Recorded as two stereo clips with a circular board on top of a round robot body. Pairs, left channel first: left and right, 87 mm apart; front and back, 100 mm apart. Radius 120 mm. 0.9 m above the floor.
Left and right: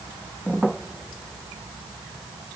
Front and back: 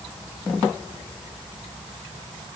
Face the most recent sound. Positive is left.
No sound to turn to.